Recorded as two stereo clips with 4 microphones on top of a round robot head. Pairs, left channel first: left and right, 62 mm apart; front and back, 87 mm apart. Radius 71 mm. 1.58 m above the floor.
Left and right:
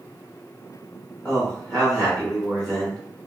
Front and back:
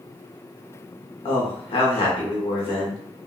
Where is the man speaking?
15° left, 0.7 m.